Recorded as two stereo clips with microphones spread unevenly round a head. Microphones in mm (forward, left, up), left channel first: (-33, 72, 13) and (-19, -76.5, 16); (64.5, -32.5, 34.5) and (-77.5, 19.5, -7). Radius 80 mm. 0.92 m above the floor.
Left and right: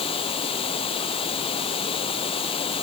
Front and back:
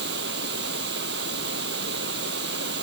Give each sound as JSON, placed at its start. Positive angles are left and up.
{"t": 0.0, "sound": "running water", "azimuth_deg": 150}